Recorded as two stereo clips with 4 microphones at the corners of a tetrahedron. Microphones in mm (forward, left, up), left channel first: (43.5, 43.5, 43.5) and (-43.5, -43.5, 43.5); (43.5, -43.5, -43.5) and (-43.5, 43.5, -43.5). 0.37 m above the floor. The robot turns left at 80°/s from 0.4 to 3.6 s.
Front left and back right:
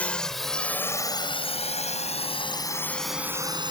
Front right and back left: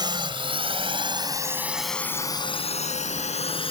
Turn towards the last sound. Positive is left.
turn(degrees=-85)